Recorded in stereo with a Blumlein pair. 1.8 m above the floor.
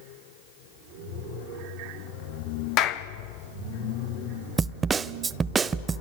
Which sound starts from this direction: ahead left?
A clap, at 2.8 s.